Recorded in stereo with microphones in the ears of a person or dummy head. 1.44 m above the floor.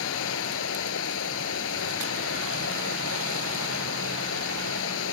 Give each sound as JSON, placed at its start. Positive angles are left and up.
{"t": 0.0, "sound": "running water", "side_deg": 75}